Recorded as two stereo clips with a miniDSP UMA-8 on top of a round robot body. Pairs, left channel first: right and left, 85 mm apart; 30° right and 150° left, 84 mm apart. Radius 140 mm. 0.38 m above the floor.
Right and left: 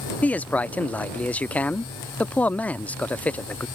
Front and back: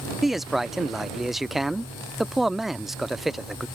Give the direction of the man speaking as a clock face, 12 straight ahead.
4 o'clock.